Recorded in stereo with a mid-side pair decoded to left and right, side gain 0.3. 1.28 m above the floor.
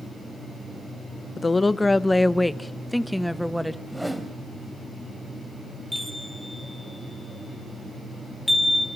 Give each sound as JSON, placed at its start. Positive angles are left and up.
{"t": 1.4, "sound": "a woman speaking", "azimuth_deg": 40, "distance_m": 1.1}
{"t": 3.9, "sound": "a whoosh", "azimuth_deg": -10, "distance_m": 3.5}
{"t": 5.9, "sound": "a chime", "azimuth_deg": 5, "distance_m": 5.5}